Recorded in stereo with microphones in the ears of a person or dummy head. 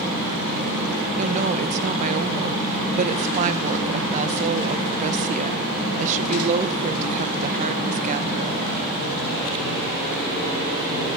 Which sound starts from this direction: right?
A woman speaking, at 1.2 s.